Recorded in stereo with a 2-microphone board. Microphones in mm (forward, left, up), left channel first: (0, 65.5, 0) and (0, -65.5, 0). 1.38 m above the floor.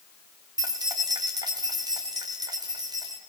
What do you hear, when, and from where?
0.6 s keys jangling: 30° right (ahead or behind), 2.5 m